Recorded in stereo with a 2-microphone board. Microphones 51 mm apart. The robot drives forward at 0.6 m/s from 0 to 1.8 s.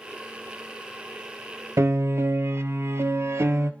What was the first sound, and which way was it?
A piano, 60° right (ahead or behind).